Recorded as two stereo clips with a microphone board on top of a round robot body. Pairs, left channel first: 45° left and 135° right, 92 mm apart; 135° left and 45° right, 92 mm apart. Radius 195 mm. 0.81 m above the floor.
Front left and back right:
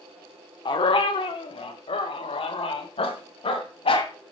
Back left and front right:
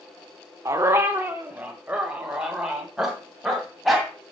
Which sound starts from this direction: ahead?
A dog barking, at 0.7 s.